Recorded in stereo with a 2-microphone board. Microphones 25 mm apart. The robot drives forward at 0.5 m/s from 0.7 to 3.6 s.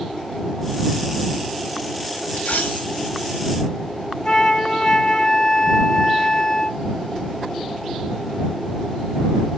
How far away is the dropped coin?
About 1.7 m.